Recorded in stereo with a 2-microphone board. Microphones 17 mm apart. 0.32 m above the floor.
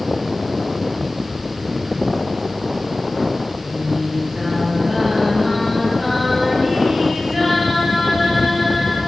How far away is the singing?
About 8 m.